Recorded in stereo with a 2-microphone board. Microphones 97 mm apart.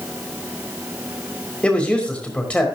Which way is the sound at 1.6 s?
15° left (ahead or behind).